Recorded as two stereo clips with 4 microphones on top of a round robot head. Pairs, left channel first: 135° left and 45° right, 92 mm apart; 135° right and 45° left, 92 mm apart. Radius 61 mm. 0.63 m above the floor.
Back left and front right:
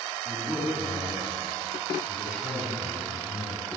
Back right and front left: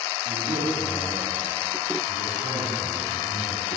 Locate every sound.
0.2 s a man speaking: 35° left, 5 m